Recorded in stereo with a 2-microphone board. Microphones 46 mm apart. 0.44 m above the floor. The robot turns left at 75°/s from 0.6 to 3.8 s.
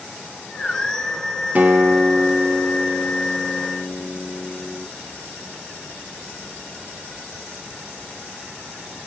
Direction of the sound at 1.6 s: 70° right.